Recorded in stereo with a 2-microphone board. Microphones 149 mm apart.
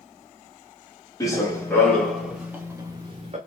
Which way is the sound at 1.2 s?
20° left (ahead or behind).